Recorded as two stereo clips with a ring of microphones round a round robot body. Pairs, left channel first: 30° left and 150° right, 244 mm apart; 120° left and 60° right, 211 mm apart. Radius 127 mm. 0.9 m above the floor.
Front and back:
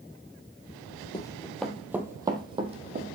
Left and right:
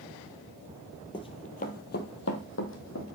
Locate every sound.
1.1 s running footsteps: 80° left, 0.9 m; by 3.0 s 150° left, 1.7 m